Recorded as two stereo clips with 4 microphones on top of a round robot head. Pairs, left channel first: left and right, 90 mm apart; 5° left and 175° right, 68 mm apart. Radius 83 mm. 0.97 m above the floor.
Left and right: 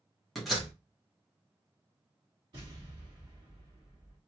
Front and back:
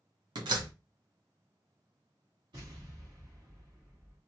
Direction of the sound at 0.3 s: Straight behind.